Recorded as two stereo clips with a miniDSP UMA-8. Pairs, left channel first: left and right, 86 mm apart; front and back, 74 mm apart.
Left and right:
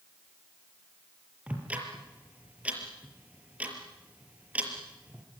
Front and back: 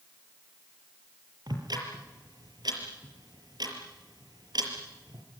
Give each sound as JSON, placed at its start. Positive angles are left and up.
{"t": 1.5, "sound": "ticking", "azimuth_deg": -165, "distance_m": 5.5}